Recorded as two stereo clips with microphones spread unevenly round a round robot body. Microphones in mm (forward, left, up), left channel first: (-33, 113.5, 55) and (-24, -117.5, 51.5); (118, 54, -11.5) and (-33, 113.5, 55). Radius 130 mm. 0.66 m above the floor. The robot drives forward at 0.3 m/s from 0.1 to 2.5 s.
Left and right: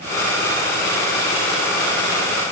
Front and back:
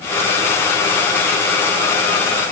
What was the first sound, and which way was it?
Only background noise.